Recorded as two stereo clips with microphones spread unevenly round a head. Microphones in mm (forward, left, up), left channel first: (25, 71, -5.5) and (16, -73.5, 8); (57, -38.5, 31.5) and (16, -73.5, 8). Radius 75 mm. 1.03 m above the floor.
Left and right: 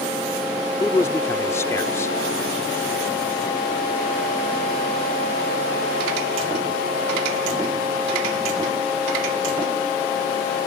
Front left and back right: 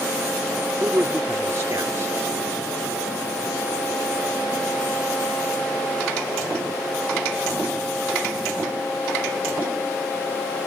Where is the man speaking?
160° left.